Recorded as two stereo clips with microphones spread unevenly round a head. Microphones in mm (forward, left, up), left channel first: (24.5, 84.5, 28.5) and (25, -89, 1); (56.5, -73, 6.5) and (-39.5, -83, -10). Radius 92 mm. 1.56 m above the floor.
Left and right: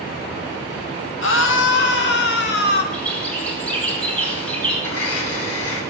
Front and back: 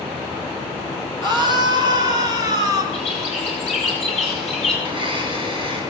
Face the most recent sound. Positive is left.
turn(degrees=85)